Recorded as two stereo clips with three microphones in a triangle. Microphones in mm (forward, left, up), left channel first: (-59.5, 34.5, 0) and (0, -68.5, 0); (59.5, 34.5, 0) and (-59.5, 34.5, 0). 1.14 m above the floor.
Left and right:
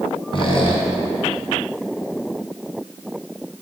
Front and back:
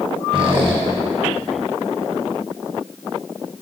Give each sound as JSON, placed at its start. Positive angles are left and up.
{"t": 0.3, "sound": "a squeak", "azimuth_deg": 150, "distance_m": 1.6}